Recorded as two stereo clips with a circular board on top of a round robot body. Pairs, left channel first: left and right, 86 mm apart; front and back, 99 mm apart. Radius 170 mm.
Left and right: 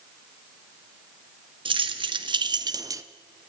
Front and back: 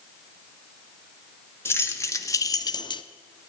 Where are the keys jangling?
65° right, 1.1 m; by 3.0 s 35° right, 0.6 m.